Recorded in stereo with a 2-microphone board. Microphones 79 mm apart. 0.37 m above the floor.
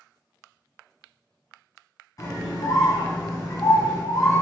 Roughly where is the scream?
Left.